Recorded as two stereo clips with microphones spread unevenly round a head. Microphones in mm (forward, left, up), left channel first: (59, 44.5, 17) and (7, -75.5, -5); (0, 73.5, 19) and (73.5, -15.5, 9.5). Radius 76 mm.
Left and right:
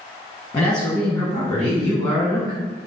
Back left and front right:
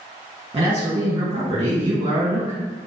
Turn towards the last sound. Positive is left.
turn(degrees=0)